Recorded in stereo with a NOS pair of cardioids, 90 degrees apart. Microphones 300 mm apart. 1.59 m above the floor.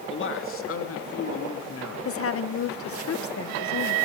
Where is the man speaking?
40° left, 2.5 m; by 1.9 s 55° left, 4.5 m.